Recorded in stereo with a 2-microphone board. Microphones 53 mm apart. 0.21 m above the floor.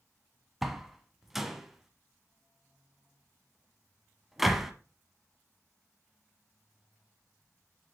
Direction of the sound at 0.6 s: 5° right (ahead or behind).